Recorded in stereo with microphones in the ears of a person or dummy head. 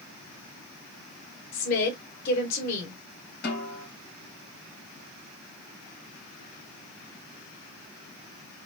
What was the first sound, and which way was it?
A woman speaking, 50° left (ahead or behind).